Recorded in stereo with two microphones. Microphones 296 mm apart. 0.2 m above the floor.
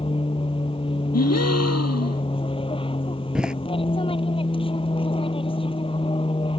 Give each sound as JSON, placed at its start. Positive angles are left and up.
{"t": 0.0, "sound": "an aircraft", "side_deg": 20}
{"t": 1.1, "sound": "a gasp", "side_deg": 60}
{"t": 3.4, "sound": "a door slam", "side_deg": -5}